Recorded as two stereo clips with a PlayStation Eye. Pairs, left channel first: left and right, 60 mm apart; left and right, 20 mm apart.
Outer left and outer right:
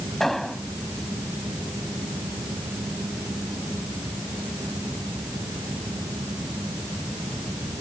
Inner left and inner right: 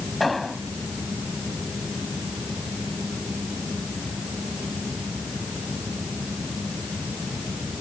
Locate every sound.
0.2 s an explosion: 5° left (ahead or behind)